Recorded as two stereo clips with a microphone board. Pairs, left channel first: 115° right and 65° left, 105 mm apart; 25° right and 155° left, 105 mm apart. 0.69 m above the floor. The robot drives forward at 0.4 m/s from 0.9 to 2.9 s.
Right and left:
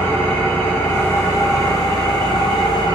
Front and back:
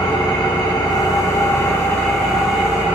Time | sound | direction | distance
0.0 | an engine running | 50° right | 0.9 m